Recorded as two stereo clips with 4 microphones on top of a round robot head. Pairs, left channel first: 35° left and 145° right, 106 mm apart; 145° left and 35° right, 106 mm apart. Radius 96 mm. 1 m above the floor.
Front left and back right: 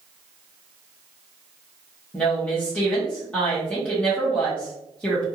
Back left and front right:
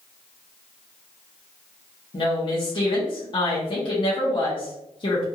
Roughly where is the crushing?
No crushing in this recording.